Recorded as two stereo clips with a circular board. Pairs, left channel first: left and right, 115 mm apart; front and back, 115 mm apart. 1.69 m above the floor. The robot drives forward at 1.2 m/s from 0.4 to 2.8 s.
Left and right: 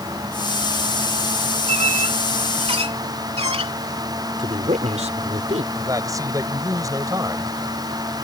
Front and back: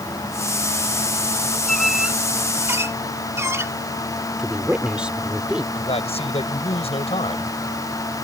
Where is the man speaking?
30° right.